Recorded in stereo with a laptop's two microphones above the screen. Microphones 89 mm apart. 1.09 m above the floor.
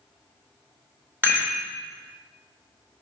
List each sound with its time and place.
1.2 s a rattle: 25° right (ahead or behind), 0.9 m